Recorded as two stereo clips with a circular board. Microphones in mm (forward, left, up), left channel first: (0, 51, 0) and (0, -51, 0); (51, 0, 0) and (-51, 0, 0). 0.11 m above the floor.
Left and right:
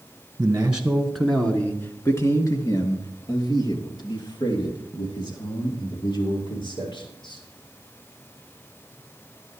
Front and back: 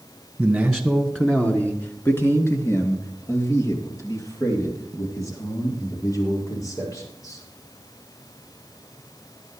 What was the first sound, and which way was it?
A man speaking, 105° right.